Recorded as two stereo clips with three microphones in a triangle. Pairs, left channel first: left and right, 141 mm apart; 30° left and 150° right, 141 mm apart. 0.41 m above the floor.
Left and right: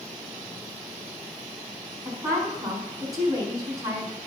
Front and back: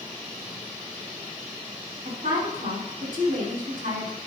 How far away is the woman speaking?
About 4 m.